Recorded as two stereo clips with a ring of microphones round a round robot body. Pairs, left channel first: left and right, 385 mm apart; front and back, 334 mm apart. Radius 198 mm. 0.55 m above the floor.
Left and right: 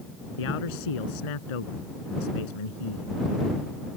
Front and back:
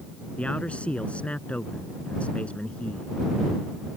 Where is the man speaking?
85° left.